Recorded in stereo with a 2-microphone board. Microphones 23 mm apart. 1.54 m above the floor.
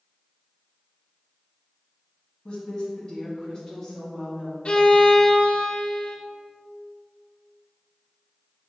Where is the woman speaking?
35° left (ahead or behind), 1.9 m; by 4.5 s 5° left (ahead or behind), 2.5 m.